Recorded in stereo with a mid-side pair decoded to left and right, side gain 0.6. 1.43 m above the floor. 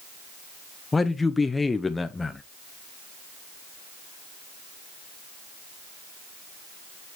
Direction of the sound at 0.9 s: 15° left.